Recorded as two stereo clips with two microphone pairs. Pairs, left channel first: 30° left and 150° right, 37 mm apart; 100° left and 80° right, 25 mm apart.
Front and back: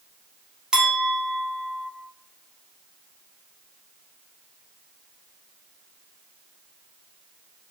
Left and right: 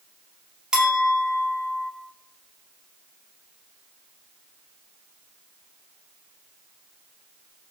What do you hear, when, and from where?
0.7 s a clink: 110° right, 0.7 m